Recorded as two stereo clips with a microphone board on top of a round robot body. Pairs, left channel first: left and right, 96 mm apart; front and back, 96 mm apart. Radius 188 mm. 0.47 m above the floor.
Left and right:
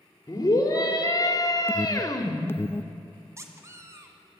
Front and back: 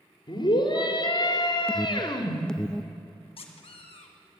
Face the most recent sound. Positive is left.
turn(degrees=-30)